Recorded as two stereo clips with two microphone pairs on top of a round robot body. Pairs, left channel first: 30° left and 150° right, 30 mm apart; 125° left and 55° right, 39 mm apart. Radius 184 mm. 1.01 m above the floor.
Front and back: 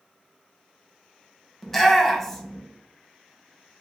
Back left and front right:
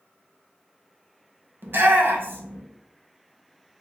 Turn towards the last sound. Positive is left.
turn(degrees=-40)